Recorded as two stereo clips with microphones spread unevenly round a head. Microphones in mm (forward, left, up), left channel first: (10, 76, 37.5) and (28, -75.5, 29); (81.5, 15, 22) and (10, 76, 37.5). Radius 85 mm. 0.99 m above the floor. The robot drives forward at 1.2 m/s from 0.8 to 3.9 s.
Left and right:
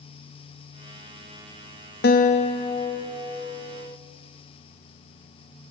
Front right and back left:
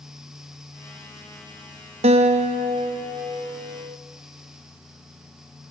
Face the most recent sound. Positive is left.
turn(degrees=170)